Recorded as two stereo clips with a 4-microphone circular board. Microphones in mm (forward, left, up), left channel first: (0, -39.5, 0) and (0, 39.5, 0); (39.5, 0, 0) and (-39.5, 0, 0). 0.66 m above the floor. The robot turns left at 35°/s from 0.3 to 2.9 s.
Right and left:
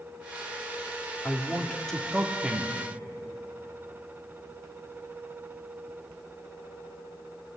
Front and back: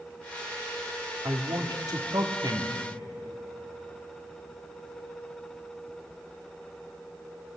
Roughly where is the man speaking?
Behind right.